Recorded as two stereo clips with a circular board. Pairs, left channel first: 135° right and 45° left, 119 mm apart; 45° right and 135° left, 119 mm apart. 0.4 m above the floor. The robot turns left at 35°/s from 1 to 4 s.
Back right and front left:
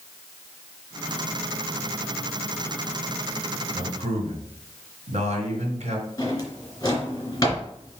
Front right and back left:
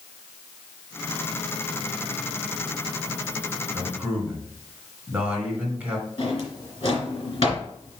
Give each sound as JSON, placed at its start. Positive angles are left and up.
{"t": 3.7, "sound": "a man speaking", "azimuth_deg": 70, "distance_m": 3.0}
{"t": 6.2, "sound": "a drawer", "azimuth_deg": -75, "distance_m": 3.0}